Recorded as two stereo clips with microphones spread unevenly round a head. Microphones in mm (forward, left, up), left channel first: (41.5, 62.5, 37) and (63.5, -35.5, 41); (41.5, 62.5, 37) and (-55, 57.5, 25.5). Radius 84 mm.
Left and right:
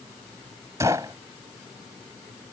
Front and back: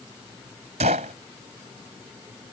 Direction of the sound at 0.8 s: 145° right.